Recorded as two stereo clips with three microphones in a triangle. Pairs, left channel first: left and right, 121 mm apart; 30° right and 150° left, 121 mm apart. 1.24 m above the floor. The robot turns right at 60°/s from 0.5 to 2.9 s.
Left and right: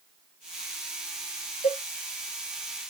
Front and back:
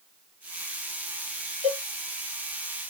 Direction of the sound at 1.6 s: 120° left.